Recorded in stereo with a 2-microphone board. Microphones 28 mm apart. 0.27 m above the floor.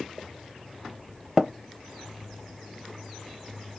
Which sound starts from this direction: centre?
Tapping, at 1.4 s.